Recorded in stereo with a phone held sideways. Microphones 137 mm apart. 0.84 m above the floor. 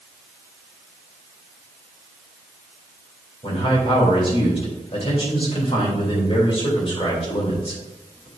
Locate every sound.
3.4 s a man speaking: 45° left (ahead or behind), 3 m